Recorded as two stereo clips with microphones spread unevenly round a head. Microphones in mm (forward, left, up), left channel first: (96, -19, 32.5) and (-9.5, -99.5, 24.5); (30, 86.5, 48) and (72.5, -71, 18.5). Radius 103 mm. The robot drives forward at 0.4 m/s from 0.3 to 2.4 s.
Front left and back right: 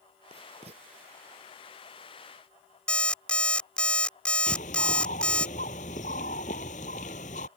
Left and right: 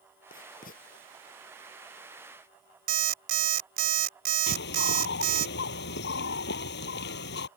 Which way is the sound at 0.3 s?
155° left.